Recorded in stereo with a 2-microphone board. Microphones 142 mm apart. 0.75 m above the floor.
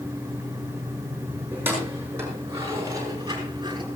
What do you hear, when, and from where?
1.5 s keys jangling: 15° right (ahead or behind), 7.5 m; by 3.9 s 30° right (ahead or behind), 5.5 m